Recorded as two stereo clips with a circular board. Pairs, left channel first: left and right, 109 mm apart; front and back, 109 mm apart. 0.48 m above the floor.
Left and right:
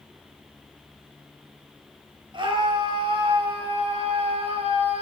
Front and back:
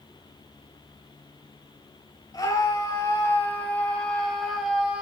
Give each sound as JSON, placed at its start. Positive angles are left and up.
{"t": 2.3, "sound": "a scream", "azimuth_deg": -55, "distance_m": 3.5}